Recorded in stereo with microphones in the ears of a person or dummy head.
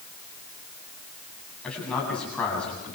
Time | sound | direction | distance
1.6 | a man speaking | 5° left (ahead or behind) | 7.5 m